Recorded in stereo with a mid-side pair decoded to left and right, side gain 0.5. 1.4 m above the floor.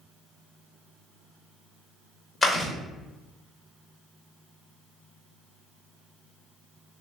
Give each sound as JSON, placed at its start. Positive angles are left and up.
{"t": 2.4, "sound": "chewing", "azimuth_deg": 25, "distance_m": 1.7}